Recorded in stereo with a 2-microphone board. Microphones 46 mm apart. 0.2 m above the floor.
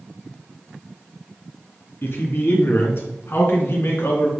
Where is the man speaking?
50° left (ahead or behind), 2.5 m; by 4.3 s 55° left (ahead or behind), 3 m.